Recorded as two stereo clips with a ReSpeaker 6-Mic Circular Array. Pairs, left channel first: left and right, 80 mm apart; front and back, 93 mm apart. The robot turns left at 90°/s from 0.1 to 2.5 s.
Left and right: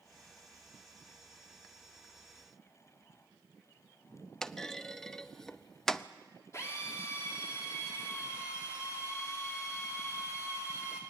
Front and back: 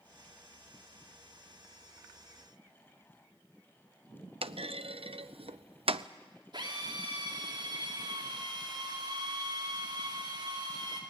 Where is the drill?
140° left, 5 m.